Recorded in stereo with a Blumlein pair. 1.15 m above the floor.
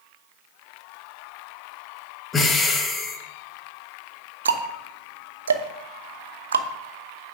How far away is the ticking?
About 0.9 m.